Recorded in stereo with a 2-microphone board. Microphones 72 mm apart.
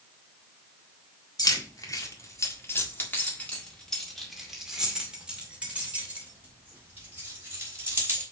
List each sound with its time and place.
1.4 s keys jangling: 65° left (ahead or behind), 1.9 m; by 8.2 s 35° right (ahead or behind), 4 m